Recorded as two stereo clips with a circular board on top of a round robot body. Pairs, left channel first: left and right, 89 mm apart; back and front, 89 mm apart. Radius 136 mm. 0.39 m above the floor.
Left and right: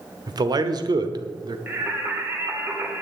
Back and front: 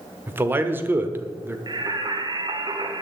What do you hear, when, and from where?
0.3 s a man speaking: 65° right, 1.3 m
1.7 s singing: 30° right, 1.9 m